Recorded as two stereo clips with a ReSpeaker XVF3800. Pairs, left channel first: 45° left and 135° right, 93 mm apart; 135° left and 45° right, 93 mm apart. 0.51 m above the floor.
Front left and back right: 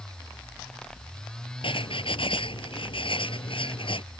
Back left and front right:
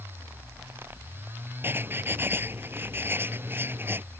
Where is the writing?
25° left.